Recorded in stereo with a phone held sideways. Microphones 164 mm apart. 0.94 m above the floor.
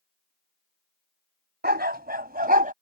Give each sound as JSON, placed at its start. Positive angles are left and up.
{"t": 1.6, "sound": "a dog barking", "side_deg": -80}